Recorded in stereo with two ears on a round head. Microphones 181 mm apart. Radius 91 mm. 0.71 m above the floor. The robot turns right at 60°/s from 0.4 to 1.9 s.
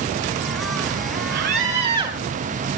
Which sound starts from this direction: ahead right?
A scream, at 1.3 s.